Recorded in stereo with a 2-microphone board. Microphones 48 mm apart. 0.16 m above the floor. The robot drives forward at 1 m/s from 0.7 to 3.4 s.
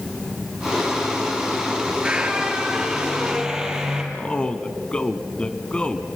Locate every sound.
1.9 s a squeak: 20° right (ahead or behind), 2 m; by 4.0 s 10° right (ahead or behind), 3.5 m
4.1 s a man speaking: 20° left (ahead or behind), 1.2 m